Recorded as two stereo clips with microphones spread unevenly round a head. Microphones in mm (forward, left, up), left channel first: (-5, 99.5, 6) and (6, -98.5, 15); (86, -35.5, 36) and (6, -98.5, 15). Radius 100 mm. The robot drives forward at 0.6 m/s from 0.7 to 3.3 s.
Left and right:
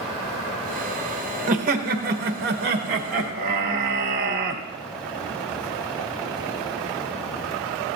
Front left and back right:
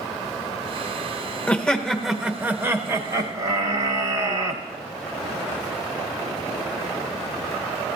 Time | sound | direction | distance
1.5 | laughter | 45° right | 1.1 m